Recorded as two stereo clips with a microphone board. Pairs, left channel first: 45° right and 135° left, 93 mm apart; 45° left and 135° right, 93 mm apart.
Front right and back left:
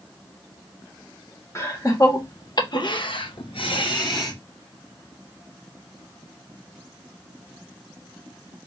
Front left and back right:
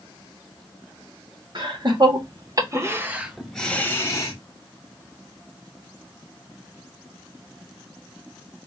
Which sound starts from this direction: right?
Laughter, at 1.6 s.